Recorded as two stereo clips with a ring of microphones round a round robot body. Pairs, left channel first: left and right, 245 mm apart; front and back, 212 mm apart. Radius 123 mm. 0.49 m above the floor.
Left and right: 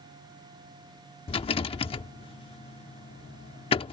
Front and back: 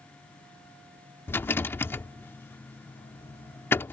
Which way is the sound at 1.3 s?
65° left.